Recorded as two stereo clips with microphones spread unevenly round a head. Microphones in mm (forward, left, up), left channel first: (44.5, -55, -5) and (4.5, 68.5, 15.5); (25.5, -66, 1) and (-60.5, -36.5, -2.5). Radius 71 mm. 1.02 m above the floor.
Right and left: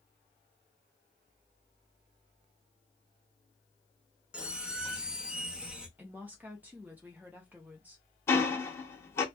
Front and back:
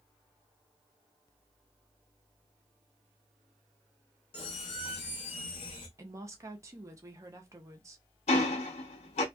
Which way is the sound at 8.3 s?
Straight ahead.